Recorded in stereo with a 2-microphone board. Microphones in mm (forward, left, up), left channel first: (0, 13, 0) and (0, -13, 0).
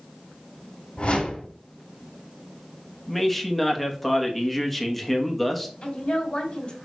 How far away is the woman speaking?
About 2.5 m.